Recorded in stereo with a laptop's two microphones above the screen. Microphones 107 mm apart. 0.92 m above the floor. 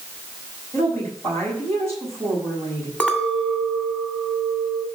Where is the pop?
I don't hear a pop.